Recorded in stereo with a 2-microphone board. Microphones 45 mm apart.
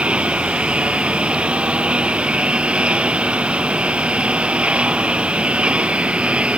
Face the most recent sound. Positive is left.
turn(degrees=-25)  # may be behind; listen again after turning